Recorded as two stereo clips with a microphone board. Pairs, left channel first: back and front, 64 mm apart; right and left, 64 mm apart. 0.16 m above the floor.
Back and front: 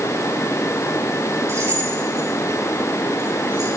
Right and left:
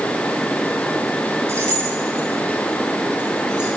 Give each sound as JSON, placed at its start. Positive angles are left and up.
{"t": 1.5, "sound": "keys jangling", "azimuth_deg": 45, "distance_m": 2.0}